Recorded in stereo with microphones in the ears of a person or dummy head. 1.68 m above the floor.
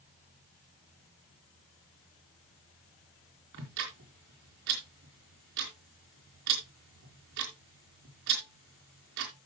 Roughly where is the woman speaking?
I don't hear a woman speaking.